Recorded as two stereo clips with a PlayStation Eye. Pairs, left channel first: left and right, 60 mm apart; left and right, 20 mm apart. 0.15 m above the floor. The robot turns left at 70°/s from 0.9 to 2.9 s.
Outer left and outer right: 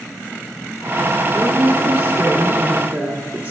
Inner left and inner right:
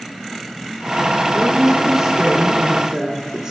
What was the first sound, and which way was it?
A woman speaking, 30° right.